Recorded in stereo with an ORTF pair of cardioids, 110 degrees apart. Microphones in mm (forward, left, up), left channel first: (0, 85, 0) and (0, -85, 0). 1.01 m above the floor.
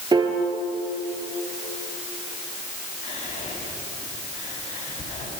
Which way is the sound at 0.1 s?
25° right.